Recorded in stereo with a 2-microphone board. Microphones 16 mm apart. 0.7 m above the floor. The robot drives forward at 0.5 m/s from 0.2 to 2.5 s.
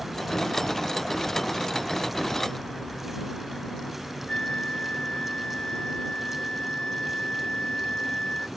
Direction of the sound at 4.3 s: 75° left (ahead or behind).